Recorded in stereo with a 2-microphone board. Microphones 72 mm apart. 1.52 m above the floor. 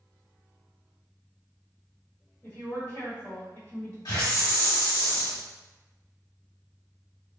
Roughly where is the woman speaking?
Left.